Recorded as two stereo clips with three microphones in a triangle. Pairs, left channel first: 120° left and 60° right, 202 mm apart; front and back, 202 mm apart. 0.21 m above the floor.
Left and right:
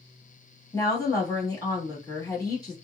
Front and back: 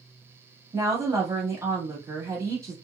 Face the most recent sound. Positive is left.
turn(degrees=140)